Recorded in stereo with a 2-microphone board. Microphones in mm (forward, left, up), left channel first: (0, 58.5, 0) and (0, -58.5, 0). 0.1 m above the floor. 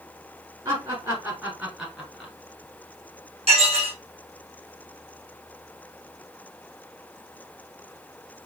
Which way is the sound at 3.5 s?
60° right (ahead or behind).